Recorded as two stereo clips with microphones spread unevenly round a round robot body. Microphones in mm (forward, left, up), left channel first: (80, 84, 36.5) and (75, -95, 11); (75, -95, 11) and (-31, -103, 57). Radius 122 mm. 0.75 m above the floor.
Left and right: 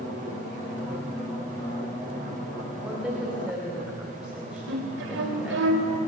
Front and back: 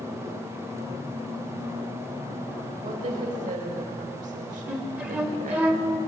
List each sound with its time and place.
2.8 s a woman speaking: straight behind, 3 m
4.7 s a flute: 100° right, 2 m